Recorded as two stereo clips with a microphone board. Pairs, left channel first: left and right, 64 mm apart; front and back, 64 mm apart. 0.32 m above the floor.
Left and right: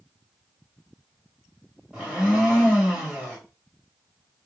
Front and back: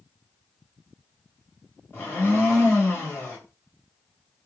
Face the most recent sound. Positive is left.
turn(degrees=-25)